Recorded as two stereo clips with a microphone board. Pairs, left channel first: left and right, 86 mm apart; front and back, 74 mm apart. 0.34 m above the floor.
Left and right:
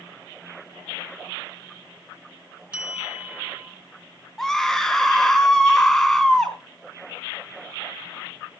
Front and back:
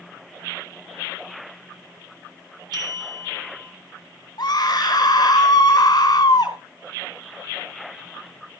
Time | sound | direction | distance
2.7 | a bell | 165° right | 4 m
4.4 | a scream | 5° left | 4 m